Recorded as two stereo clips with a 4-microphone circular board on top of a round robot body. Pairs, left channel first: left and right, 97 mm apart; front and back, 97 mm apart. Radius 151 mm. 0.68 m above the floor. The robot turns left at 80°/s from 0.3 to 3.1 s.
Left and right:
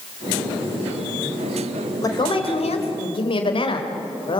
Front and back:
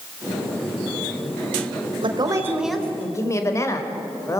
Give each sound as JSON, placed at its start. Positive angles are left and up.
{"t": 2.0, "sound": "a woman speaking", "azimuth_deg": 145, "distance_m": 3.0}